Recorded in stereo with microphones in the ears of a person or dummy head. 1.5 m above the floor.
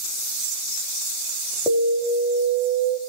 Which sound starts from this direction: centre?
An alarm, at 1.7 s.